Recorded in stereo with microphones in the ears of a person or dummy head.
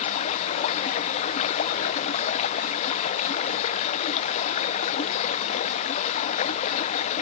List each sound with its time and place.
0.0 s running water: 40° left (ahead or behind)